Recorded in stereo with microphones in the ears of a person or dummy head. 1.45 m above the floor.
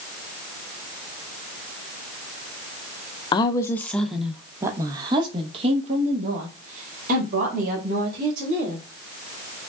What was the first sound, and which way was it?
A woman speaking, 25° left (ahead or behind).